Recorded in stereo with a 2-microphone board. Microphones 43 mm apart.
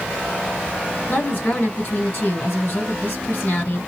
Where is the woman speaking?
55° left (ahead or behind), 2 m.